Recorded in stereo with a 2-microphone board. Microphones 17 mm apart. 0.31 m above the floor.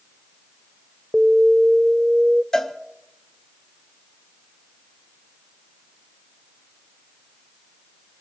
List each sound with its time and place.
1.1 s an alarm: 25° right (ahead or behind), 0.6 m
2.5 s a cowbell: 45° left (ahead or behind), 1.3 m